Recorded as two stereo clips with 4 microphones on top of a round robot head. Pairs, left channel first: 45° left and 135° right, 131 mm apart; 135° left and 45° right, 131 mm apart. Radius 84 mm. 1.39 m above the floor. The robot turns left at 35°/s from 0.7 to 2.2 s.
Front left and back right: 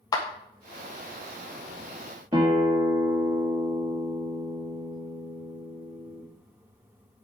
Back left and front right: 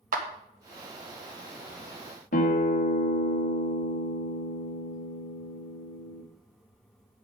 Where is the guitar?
165° left, 1.5 m.